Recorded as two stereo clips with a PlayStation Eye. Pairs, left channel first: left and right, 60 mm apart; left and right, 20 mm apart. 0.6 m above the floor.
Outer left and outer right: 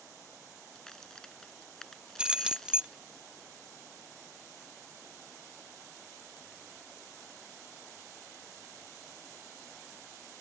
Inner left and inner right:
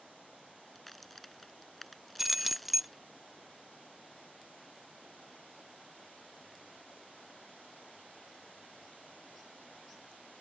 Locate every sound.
0.8 s a crack: 10° left (ahead or behind)
2.2 s keys jangling: 15° right (ahead or behind)